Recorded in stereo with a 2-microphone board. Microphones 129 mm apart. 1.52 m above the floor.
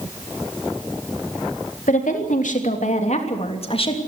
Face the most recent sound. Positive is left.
turn(degrees=40)  # may be behind; listen again after turning